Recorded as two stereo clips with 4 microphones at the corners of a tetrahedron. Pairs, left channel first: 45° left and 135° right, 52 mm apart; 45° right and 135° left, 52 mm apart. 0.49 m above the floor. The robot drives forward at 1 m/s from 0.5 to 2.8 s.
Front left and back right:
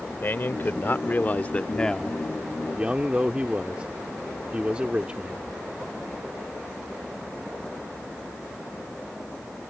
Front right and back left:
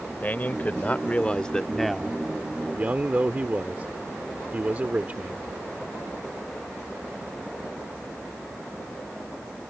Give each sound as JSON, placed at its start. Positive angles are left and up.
{"t": 0.2, "sound": "a man speaking", "azimuth_deg": 5}